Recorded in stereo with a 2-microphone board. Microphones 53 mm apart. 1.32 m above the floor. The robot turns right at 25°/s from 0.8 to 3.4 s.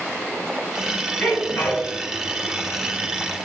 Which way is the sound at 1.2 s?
30° left (ahead or behind).